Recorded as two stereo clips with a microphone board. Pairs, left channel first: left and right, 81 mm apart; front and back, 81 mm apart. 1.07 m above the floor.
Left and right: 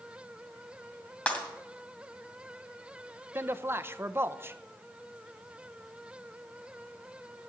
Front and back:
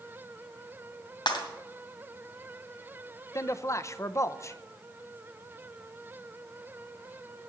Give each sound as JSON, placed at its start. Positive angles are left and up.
{"t": 1.3, "sound": "breaking glass", "azimuth_deg": 15, "distance_m": 2.0}
{"t": 3.4, "sound": "a man speaking", "azimuth_deg": -40, "distance_m": 0.6}